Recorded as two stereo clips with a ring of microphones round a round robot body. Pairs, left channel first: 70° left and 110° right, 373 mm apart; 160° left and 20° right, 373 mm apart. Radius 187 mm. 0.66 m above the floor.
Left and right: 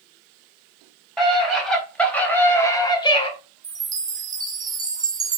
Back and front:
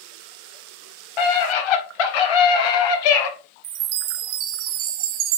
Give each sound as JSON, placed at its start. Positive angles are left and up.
{"t": 1.2, "sound": "a scream", "azimuth_deg": 155, "distance_m": 5.0}
{"t": 3.6, "sound": "a chime", "azimuth_deg": -35, "distance_m": 0.9}